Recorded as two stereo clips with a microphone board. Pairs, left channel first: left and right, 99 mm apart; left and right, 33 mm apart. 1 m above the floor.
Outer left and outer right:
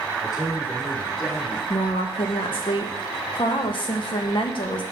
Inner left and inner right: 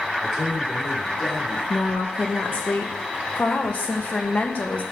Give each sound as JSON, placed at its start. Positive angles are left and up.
{"t": 0.2, "sound": "a man speaking", "side_deg": 0, "distance_m": 2.0}
{"t": 1.7, "sound": "a woman speaking", "side_deg": 55, "distance_m": 1.1}